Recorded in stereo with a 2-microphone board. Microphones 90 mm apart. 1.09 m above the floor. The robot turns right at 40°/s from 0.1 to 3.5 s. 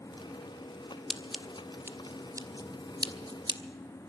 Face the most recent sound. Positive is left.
turn(degrees=-55)  # may be behind; listen again after turning